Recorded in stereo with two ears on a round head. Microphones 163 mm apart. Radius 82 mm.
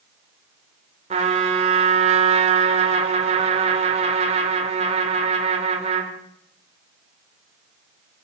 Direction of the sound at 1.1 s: 35° right (ahead or behind).